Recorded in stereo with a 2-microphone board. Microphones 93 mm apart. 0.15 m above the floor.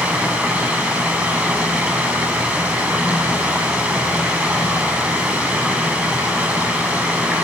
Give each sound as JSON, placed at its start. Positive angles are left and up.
{"t": 0.0, "sound": "running water", "side_deg": -15, "distance_m": 6.0}